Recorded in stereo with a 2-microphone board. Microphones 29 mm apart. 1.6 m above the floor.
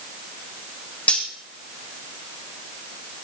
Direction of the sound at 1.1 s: 45° left (ahead or behind).